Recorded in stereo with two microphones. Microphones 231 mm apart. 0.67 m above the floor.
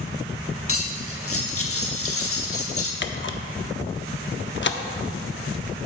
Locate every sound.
0.7 s cutlery clinking: 75° left (ahead or behind), 1.0 m
3.0 s a camera shutter: 55° left (ahead or behind), 0.6 m